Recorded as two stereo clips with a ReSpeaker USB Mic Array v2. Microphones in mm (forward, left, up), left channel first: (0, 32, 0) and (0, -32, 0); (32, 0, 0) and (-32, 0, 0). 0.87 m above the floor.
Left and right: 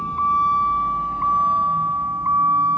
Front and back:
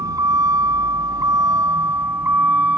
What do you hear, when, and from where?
0.0 s a vehicle: 165° left; by 2.8 s 115° right